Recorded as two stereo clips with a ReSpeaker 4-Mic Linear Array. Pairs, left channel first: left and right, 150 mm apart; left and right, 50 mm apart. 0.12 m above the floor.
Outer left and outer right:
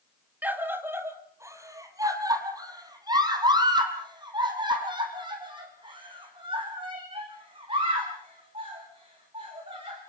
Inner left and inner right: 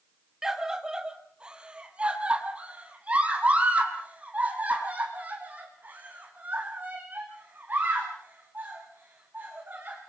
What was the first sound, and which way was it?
A scream, 10° right (ahead or behind).